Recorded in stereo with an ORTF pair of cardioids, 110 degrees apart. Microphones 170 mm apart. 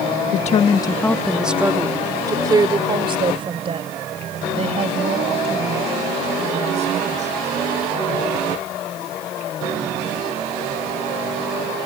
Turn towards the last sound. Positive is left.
turn(degrees=-45)